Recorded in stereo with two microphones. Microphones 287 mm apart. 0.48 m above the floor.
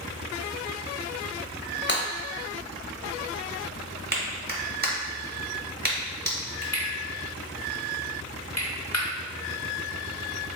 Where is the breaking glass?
40° left (ahead or behind), 1.0 m.